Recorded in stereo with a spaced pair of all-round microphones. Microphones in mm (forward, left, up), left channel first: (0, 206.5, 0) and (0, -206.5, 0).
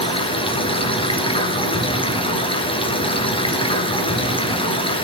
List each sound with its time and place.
0.0 s running water: 10° left (ahead or behind), 3 m